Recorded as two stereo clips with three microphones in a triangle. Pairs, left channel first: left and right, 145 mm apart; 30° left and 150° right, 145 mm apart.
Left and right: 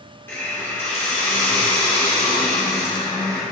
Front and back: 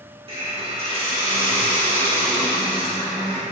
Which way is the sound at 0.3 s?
165° left.